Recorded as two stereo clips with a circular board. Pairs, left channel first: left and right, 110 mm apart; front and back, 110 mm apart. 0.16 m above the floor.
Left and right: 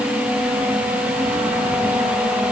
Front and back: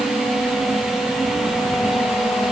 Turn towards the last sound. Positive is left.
No sound to turn to.